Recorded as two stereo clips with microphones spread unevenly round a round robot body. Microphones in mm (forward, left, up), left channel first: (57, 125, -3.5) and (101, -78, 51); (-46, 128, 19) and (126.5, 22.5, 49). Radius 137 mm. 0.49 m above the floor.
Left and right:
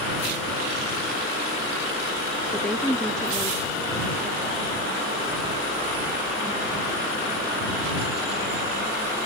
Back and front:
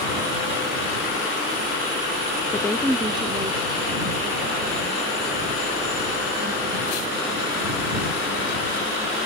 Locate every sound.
2.5 s a woman speaking: 160° left; by 9.2 s 15° left